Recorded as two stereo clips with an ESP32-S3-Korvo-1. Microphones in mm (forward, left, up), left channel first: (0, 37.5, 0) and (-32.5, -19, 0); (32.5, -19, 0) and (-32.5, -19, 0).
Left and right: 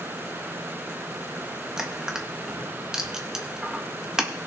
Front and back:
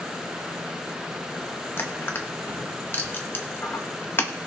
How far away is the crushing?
About 1.2 m.